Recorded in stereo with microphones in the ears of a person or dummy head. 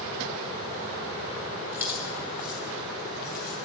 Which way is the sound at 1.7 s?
15° right (ahead or behind).